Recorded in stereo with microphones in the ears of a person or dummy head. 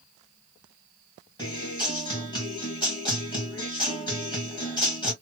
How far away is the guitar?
About 2 m.